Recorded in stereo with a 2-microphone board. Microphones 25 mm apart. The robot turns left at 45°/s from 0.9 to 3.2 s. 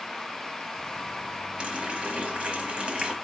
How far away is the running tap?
About 0.8 m.